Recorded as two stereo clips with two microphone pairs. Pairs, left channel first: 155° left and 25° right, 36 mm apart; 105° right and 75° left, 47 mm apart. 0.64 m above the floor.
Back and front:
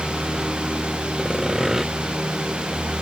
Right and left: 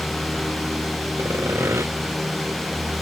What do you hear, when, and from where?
1.2 s sawing: 55° left